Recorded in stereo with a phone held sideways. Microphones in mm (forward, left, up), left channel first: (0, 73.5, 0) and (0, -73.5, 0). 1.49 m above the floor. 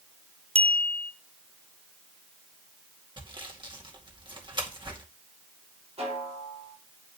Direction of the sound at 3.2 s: 35° right (ahead or behind).